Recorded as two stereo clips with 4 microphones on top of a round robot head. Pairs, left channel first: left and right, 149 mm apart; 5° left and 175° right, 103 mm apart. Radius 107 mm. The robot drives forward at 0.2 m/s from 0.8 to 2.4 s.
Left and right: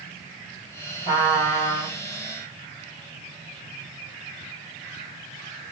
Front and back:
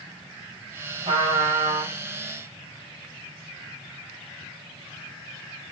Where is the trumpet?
150° left, 3.5 m.